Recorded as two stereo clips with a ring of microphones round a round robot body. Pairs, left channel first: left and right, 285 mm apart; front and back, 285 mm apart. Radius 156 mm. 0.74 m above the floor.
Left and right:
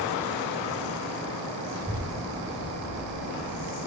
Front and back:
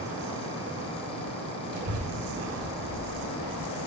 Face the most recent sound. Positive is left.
turn(degrees=-175)